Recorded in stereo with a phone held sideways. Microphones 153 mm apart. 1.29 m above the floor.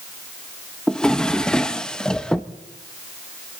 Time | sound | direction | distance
0.9 | a drawer | 5° left (ahead or behind) | 0.6 m